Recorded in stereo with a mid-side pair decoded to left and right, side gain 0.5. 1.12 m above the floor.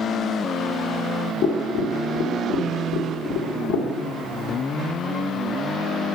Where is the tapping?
65° left, 1.2 m.